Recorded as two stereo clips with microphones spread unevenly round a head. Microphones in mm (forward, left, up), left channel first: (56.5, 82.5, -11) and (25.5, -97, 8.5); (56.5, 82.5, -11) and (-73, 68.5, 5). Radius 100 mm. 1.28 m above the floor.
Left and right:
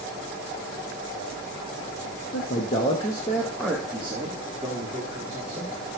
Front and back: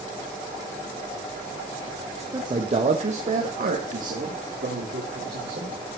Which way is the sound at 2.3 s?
125° left.